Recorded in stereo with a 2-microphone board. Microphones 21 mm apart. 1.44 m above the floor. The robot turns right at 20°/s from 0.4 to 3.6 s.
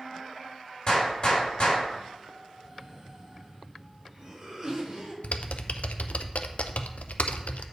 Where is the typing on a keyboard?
90° left, 0.5 m.